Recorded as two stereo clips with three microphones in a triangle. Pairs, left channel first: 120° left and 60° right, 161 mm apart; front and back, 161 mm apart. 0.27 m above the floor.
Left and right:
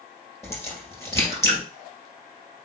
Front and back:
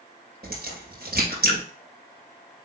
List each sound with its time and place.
0.4 s a crack: 165° right, 2 m